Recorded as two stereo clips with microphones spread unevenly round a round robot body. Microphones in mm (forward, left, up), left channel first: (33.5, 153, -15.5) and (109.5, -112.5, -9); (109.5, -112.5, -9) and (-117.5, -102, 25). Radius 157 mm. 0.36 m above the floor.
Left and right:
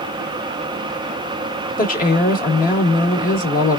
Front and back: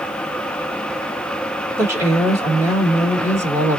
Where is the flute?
No flute in this recording.